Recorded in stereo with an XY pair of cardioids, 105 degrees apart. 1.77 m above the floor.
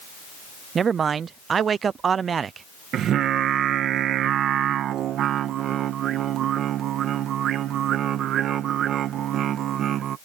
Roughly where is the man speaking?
Ahead right.